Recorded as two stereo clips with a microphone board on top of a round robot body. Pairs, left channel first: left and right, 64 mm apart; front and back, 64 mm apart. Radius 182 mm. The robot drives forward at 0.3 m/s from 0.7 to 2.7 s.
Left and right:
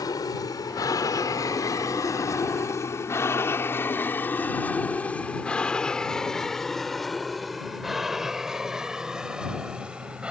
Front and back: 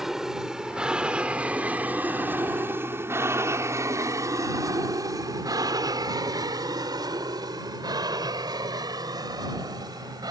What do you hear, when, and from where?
0.0 s an aircraft: 95° left; by 10.3 s 165° right